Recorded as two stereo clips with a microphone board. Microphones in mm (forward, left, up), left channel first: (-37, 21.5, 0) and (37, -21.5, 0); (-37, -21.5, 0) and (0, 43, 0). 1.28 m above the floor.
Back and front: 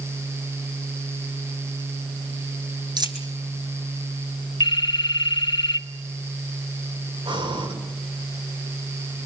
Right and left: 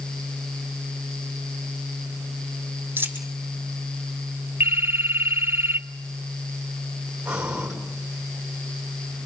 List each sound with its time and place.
3.0 s a dropped coin: straight ahead, 3 m
4.6 s a phone ringing: 120° left, 2.5 m
7.2 s breathing: 15° right, 6 m